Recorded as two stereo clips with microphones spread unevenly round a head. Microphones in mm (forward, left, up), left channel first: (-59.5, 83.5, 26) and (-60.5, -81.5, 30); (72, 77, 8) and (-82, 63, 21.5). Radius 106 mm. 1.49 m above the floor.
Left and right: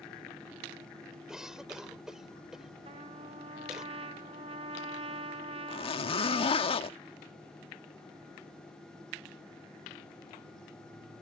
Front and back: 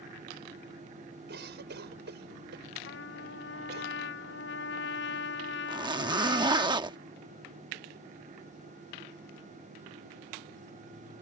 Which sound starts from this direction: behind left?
A zipper, at 5.7 s.